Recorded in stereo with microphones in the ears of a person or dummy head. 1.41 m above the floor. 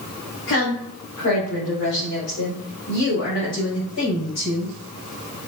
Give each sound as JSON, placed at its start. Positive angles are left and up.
{"t": 0.5, "sound": "a woman speaking", "side_deg": 65, "distance_m": 1.4}